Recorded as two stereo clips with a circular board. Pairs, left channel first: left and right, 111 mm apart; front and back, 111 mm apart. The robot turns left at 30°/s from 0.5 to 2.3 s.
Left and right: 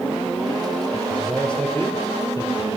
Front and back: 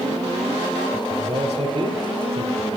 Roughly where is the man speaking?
Behind.